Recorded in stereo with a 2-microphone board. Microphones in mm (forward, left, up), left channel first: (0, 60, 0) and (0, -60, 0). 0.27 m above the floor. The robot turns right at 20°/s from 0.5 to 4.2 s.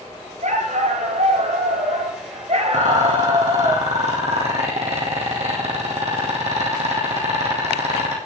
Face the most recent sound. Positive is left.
turn(degrees=-60)  # may be behind; listen again after turning